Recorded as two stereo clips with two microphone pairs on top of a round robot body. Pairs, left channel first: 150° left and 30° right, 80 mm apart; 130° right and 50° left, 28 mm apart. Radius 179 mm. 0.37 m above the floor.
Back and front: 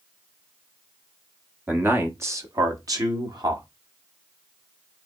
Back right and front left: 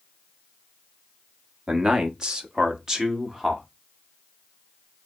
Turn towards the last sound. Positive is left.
turn(degrees=-15)